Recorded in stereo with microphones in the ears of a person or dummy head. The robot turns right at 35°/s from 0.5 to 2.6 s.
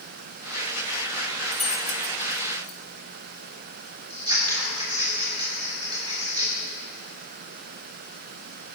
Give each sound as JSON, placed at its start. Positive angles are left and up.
{"t": 1.5, "sound": "keys jangling", "side_deg": 0, "distance_m": 1.1}
{"t": 4.1, "sound": "scissors", "side_deg": -30, "distance_m": 3.5}